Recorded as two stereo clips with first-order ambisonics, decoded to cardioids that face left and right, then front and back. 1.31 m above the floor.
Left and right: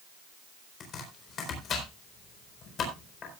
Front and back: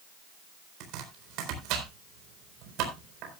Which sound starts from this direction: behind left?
Chopping, at 0.8 s.